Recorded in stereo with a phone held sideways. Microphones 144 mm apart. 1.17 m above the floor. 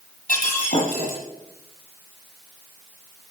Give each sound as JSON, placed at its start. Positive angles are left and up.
{"t": 0.3, "sound": "breaking glass", "side_deg": 75, "distance_m": 9.5}